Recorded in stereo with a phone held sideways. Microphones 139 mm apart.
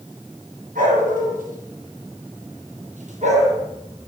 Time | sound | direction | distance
0.8 | a dog barking | 80° right | 8.5 m